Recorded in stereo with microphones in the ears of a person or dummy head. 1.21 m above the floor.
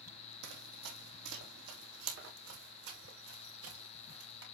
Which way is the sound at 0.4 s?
60° right (ahead or behind).